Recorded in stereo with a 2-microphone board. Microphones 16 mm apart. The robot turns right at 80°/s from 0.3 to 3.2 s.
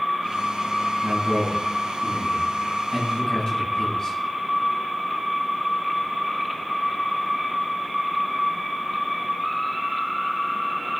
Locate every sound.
1.0 s a man speaking: 60° right (ahead or behind), 7.5 m; by 4.2 s 55° left (ahead or behind), 7.5 m